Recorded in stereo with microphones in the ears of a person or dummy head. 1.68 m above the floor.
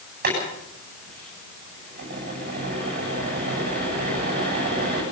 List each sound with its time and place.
0.2 s boiling: 50° right (ahead or behind), 8.5 m